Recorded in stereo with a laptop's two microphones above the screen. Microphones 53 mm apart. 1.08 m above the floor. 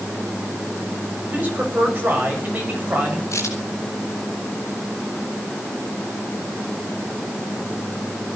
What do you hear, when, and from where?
1.2 s a man speaking: 35° right (ahead or behind), 7 m
3.3 s a crack: 70° left (ahead or behind), 8 m